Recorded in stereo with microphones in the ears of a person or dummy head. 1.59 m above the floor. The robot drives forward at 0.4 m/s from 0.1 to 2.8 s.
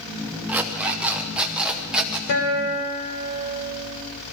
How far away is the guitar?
About 3.5 m.